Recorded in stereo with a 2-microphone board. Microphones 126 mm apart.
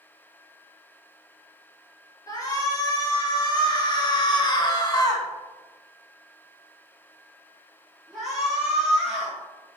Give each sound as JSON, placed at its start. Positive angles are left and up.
{"t": 2.3, "sound": "a shout", "side_deg": 30, "distance_m": 3.0}